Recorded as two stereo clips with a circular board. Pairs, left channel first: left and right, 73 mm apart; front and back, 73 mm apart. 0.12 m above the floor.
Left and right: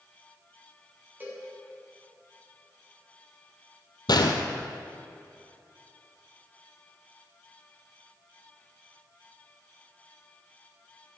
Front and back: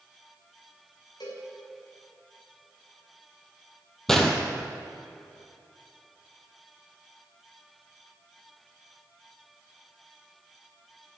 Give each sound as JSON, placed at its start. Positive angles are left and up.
{"t": 1.2, "sound": "a cowbell", "azimuth_deg": -25, "distance_m": 5.0}
{"t": 4.1, "sound": "a gunshot", "azimuth_deg": 85, "distance_m": 1.3}